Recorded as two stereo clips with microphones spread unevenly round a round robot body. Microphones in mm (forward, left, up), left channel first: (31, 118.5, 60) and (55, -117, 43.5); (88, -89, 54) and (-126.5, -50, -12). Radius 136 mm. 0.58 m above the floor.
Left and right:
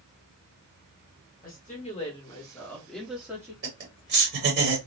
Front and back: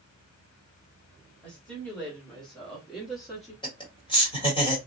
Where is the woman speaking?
100° left, 1.3 m; by 3.5 s 140° right, 1.3 m.